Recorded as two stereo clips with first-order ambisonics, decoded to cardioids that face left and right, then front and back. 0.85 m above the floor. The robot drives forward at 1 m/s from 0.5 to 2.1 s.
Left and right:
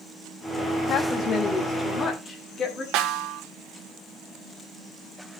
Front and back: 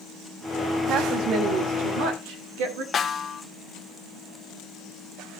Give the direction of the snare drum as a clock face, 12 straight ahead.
2 o'clock.